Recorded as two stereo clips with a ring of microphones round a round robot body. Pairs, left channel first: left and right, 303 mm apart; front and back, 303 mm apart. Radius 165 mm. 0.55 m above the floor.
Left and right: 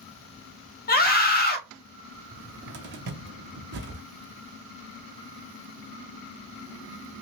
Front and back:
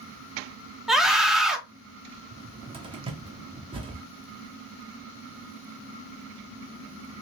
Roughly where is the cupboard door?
Behind right.